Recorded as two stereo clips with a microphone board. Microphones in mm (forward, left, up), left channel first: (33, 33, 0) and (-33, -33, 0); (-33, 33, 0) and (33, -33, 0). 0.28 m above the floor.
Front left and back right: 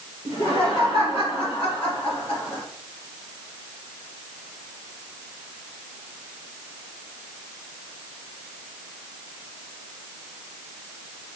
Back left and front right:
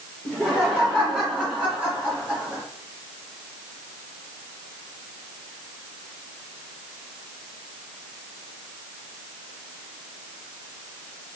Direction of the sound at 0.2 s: 50° left.